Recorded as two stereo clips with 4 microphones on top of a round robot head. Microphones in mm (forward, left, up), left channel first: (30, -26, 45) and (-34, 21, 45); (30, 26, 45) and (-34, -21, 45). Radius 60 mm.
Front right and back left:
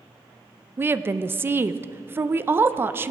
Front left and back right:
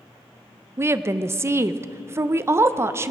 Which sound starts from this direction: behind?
A woman speaking, at 0.8 s.